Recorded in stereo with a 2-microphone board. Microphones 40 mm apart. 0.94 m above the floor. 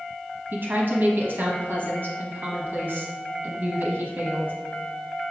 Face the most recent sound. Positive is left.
turn(degrees=-55)  # may be behind; listen again after turning